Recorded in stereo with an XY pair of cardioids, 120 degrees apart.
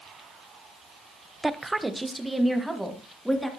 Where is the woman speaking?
15° right, 0.8 m; by 3.5 s straight ahead, 3 m.